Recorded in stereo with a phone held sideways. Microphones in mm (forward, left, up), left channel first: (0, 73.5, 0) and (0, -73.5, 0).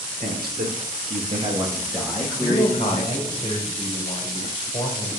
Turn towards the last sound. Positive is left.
turn(degrees=40)  # may be behind; listen again after turning